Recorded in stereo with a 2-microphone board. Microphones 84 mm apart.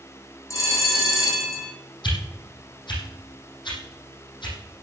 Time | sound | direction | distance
0.5 | a bell | 40° left (ahead or behind) | 7 m
2.0 | a whoosh | 70° left (ahead or behind) | 6 m